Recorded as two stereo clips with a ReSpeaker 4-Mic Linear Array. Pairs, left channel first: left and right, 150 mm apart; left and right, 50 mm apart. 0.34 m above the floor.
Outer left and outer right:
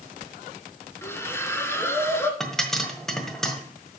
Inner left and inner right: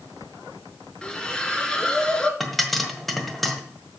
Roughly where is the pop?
Centre.